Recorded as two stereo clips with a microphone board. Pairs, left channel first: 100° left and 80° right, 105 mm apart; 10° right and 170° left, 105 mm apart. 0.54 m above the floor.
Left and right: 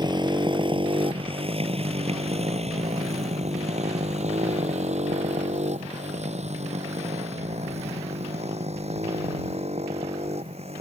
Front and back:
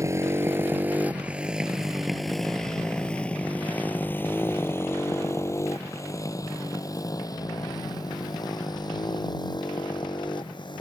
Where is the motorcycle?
130° right; by 10.8 s 60° right.